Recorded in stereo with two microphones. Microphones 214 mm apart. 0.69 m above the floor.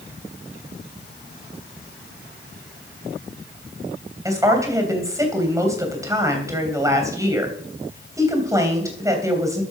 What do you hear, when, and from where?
4.2 s a woman speaking: 15° right (ahead or behind), 3 m